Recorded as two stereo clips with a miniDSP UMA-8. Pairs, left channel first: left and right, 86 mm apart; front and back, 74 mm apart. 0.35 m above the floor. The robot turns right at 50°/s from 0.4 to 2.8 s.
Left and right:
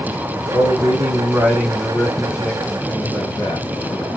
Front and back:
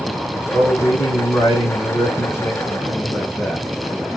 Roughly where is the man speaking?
Ahead right.